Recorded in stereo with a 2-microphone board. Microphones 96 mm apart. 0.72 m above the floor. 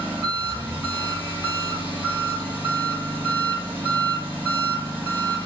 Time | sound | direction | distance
0.0 | an engine running | 20° right (ahead or behind) | 2 m